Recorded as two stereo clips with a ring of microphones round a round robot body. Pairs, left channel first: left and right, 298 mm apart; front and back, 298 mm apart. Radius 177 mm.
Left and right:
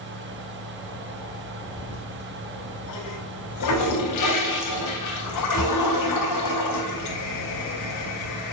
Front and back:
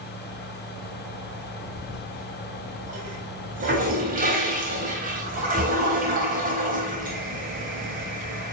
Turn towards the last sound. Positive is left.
turn(degrees=115)